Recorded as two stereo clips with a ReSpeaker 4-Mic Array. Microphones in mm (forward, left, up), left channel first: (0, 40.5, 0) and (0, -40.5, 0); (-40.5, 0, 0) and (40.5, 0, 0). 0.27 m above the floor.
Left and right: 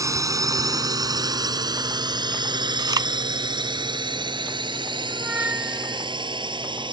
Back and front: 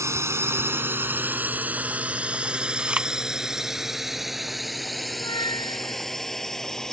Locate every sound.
0.0 s a drone: 50° right; by 6.9 s 95° right
2.8 s chewing: 75° right
5.1 s a squeak: 160° right